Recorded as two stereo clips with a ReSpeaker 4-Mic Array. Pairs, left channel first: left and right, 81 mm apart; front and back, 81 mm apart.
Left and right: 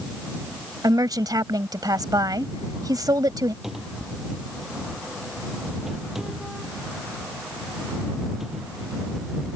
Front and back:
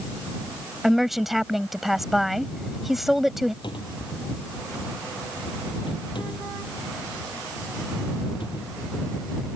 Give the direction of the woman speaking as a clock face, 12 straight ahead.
3 o'clock.